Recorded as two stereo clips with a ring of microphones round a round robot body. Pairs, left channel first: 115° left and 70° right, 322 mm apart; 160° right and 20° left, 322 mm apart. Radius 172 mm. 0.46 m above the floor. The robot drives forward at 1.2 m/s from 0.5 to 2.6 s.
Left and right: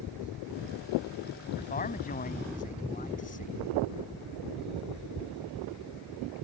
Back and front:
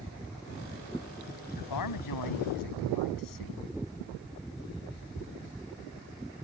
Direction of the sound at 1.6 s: Straight behind.